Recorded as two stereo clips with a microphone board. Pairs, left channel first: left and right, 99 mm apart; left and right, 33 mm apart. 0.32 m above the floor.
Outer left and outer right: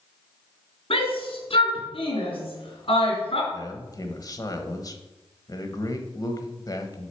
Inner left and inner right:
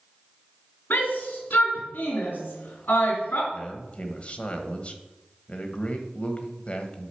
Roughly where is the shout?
Left.